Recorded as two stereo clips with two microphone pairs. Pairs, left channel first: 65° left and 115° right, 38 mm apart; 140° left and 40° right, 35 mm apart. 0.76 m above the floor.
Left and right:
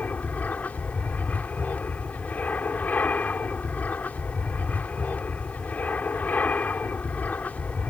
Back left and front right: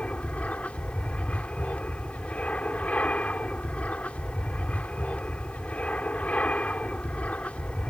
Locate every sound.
0.0 s an aircraft: 100° left